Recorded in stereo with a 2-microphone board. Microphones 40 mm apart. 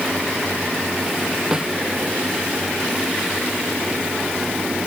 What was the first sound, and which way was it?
A snare drum, 15° right (ahead or behind).